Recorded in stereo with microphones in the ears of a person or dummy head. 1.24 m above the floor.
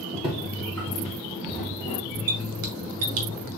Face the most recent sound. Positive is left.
turn(degrees=-50)  # may be behind; listen again after turning